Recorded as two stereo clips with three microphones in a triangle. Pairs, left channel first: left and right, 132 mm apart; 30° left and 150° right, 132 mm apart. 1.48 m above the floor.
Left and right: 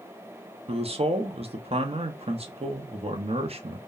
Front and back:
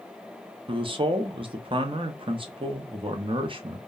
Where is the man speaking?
110° right, 0.5 m.